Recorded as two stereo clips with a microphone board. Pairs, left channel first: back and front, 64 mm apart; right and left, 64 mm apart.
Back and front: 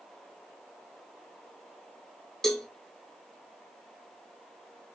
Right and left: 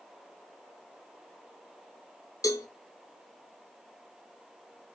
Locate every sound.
2.4 s a cowbell: 95° right, 0.5 m